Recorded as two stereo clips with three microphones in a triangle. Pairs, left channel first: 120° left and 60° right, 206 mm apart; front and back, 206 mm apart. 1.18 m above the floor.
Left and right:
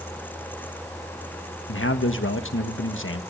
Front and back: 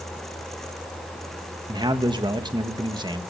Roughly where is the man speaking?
Left.